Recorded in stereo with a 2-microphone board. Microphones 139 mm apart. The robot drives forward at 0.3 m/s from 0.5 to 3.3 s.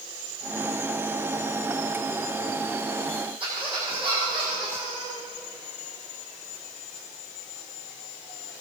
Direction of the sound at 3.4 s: 40° right (ahead or behind).